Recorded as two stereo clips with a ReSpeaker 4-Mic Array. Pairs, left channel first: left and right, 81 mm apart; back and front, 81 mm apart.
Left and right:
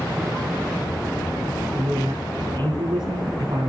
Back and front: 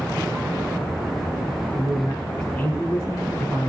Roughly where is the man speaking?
Right.